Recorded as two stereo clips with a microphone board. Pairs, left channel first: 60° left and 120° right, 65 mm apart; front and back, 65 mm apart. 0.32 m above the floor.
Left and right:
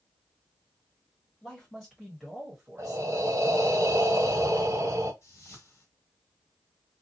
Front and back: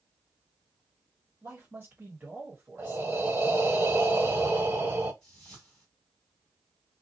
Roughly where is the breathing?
Behind right.